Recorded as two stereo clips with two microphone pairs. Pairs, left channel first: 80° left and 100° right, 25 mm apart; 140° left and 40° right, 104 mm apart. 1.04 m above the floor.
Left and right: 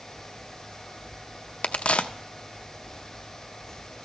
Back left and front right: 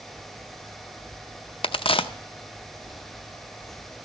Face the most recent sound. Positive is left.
turn(degrees=110)